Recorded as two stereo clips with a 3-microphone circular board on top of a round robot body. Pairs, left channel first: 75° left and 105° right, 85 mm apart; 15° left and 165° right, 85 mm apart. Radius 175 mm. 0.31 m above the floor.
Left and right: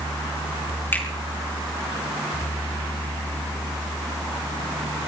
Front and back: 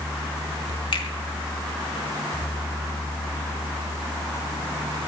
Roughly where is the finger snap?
Ahead.